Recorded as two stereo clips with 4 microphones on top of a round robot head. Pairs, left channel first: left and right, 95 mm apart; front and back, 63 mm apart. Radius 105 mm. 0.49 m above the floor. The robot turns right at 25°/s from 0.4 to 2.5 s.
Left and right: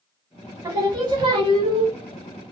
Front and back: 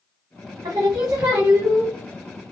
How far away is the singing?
About 0.8 m.